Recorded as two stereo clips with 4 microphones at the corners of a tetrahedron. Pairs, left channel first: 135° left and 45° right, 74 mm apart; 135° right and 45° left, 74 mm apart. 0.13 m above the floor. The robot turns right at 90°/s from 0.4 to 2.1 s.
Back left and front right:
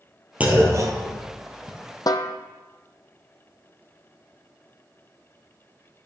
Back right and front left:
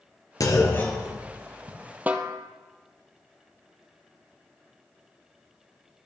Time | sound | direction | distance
0.4 | a clunk | 110° right | 1.6 m
2.1 | a snare drum | 110° left | 0.6 m